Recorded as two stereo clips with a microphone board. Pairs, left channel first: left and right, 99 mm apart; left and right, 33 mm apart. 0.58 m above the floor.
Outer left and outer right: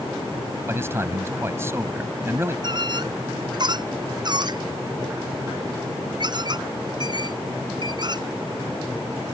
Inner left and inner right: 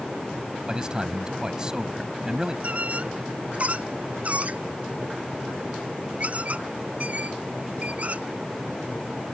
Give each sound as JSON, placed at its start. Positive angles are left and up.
{"t": 0.7, "sound": "a man speaking", "side_deg": -25}
{"t": 2.6, "sound": "a squeak", "side_deg": -45}